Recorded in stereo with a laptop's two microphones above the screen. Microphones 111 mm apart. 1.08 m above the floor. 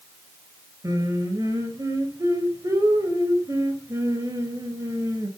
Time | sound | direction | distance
0.8 | singing | 30° right (ahead or behind) | 4.5 m